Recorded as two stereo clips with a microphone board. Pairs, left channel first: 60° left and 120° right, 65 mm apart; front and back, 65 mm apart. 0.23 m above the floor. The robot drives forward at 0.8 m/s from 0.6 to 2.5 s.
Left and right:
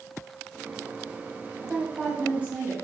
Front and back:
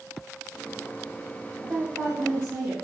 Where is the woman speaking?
175° right, 1.4 m; by 2.7 s straight behind, 1.8 m.